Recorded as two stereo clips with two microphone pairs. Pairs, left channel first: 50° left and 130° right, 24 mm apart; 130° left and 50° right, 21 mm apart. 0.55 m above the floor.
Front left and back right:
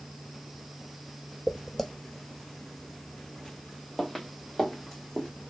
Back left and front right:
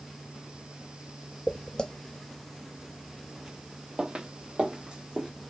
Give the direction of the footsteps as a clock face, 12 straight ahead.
8 o'clock.